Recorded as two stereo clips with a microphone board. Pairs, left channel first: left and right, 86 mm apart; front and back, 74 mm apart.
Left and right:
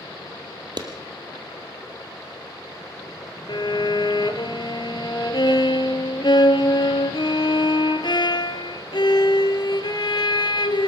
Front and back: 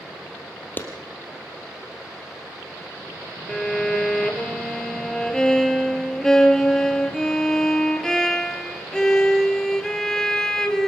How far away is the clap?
About 3 m.